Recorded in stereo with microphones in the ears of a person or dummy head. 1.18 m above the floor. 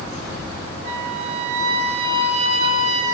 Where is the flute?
35° right (ahead or behind), 2.5 m.